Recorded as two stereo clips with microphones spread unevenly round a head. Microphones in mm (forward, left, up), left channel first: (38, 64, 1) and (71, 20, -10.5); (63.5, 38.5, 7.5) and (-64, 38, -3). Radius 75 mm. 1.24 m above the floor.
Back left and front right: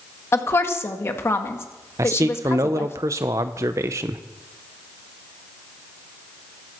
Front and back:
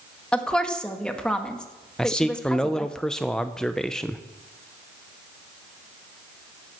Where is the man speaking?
90° right, 0.6 m.